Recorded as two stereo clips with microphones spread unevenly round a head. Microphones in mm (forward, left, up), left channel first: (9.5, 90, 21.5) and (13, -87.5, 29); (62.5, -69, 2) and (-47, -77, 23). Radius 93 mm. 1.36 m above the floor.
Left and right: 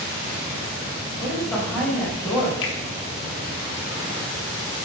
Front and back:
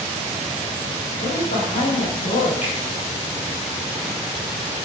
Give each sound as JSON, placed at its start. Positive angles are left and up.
{"t": 1.2, "sound": "a woman speaking", "azimuth_deg": 5, "distance_m": 6.0}
{"t": 2.6, "sound": "a finger snap", "azimuth_deg": 70, "distance_m": 2.5}